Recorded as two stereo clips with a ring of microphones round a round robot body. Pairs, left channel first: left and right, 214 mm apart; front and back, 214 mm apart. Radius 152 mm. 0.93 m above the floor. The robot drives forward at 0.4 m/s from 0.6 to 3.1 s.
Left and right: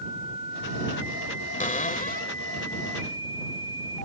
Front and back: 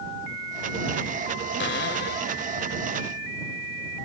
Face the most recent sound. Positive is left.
turn(degrees=50)